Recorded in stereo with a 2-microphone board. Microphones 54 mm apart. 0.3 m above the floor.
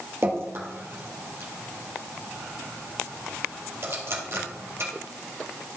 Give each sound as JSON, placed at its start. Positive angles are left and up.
{"t": 0.2, "sound": "dripping", "side_deg": -50, "distance_m": 3.5}